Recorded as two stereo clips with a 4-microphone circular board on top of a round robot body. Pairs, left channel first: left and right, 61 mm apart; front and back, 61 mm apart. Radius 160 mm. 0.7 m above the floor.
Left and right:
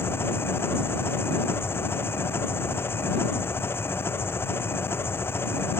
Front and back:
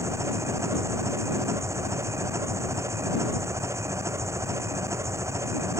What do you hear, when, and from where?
0.0 s an engine running: 140° left